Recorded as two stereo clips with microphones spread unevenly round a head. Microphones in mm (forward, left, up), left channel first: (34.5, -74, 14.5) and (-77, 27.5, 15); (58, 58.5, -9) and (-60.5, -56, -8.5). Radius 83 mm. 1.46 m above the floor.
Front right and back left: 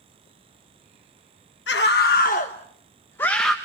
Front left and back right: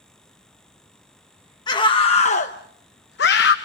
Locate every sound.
1.7 s a scream: 20° right, 1.3 m; by 3.5 s 50° left, 1.1 m